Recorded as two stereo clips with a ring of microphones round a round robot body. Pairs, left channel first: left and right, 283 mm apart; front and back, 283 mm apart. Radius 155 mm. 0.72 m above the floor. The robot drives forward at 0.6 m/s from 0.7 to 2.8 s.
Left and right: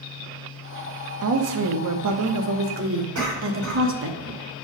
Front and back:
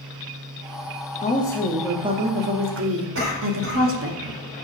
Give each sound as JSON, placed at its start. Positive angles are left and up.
{"t": 1.2, "sound": "a woman speaking", "azimuth_deg": -65, "distance_m": 0.8}
{"t": 3.1, "sound": "a cough", "azimuth_deg": -135, "distance_m": 3.0}